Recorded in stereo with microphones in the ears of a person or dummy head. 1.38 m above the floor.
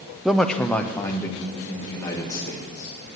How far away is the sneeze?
No sneeze in this recording.